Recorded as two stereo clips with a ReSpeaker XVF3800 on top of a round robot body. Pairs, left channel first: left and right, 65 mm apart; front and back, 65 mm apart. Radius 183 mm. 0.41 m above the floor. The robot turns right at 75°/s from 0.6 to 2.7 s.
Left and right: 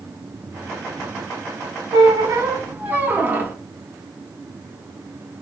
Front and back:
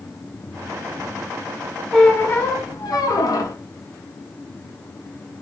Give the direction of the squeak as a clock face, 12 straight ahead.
3 o'clock.